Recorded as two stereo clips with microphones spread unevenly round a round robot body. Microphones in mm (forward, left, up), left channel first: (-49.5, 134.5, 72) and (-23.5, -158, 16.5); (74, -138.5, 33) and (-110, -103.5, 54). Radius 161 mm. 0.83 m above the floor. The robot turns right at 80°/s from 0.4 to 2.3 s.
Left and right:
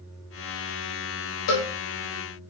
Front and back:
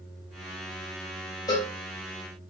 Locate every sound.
1.5 s a cowbell: 60° left, 0.7 m; by 1.7 s 75° left, 0.7 m